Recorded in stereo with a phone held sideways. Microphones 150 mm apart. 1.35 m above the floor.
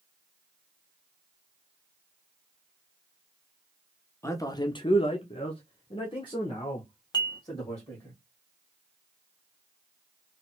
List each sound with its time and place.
4.2 s a man speaking: 15° left (ahead or behind), 0.7 m; by 8.1 s 20° left (ahead or behind), 2.0 m
7.1 s dishes clattering: 25° left (ahead or behind), 0.7 m